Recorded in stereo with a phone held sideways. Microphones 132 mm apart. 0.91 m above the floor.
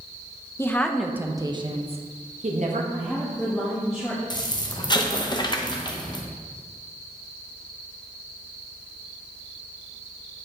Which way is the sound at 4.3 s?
30° left (ahead or behind).